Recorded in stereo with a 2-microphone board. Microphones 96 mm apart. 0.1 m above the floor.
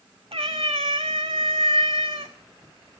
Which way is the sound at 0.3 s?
75° right (ahead or behind).